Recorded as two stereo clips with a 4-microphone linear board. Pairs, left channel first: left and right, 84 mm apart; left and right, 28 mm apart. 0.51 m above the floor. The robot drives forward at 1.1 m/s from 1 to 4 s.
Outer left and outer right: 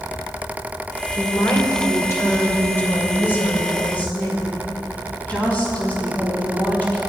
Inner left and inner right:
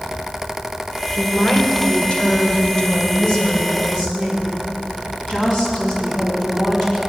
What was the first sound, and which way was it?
A woman speaking, 45° left (ahead or behind).